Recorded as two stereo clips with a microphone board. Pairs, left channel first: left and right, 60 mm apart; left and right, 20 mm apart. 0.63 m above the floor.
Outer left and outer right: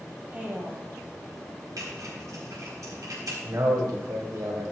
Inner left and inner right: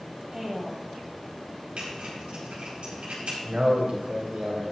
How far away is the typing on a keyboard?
About 4.5 m.